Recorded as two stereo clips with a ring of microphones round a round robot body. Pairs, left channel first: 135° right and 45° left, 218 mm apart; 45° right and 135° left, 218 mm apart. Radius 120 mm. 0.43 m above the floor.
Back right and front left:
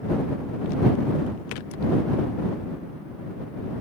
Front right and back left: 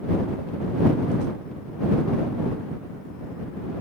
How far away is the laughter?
No laughter in this recording.